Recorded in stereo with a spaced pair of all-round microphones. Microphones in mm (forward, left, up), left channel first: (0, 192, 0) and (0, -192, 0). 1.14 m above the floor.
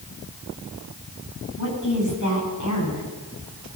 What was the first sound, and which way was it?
A woman speaking, 50° left (ahead or behind).